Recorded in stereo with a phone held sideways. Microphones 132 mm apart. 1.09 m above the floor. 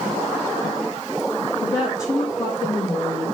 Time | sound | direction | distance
1.6 | a woman speaking | 25° left (ahead or behind) | 2.0 m